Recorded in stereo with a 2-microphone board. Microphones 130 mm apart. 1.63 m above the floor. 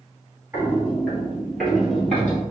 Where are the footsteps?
20° right (ahead or behind), 1.7 m; by 2.4 s 10° left (ahead or behind), 2.5 m.